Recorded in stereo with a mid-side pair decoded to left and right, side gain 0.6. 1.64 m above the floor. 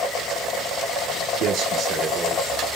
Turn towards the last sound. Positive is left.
turn(degrees=-30)